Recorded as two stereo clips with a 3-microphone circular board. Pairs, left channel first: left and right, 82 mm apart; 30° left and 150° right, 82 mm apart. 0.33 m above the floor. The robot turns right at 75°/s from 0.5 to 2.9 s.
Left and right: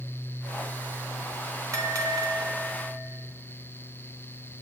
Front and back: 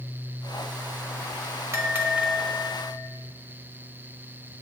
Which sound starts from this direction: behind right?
A bell, at 1.7 s.